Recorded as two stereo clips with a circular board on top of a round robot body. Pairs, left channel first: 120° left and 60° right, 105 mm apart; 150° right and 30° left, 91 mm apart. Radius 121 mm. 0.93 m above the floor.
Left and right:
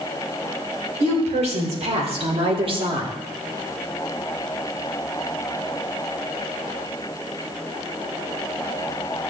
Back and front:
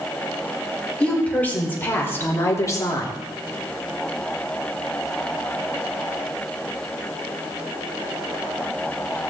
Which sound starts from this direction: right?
A woman speaking, at 1.0 s.